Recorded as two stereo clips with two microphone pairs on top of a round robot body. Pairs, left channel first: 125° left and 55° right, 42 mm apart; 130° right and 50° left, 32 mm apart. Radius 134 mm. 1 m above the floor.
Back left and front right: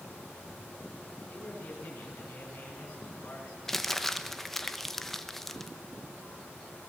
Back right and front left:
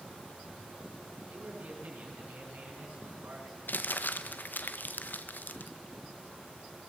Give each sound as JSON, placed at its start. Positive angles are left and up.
{"t": 1.3, "sound": "a man speaking", "azimuth_deg": 65, "distance_m": 8.5}
{"t": 3.7, "sound": "crumpling", "azimuth_deg": -150, "distance_m": 1.3}